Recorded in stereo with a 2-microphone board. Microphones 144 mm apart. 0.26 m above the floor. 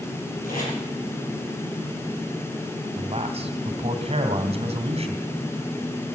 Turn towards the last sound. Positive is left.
turn(degrees=-45)  # may be behind; listen again after turning